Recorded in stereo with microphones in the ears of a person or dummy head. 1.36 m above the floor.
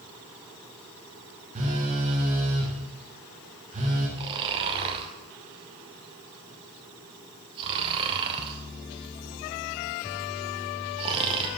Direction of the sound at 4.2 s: 30° right (ahead or behind).